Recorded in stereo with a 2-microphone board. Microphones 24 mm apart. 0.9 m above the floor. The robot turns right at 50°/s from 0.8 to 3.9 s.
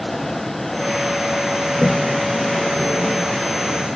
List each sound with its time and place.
1.7 s a toilet flushing: 25° left (ahead or behind), 0.9 m; by 3.9 s 40° left (ahead or behind), 0.9 m